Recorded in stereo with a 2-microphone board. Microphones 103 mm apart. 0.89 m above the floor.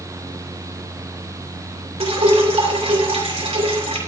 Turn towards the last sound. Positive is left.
turn(degrees=-80)